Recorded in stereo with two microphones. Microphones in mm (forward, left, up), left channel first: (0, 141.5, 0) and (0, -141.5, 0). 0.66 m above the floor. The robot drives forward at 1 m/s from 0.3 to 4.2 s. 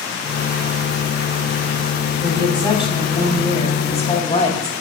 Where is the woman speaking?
15° left (ahead or behind), 6 m; by 4.7 s 25° left (ahead or behind), 4 m.